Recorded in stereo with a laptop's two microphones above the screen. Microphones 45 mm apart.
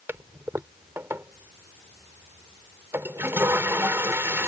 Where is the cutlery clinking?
No cutlery clinking in this recording.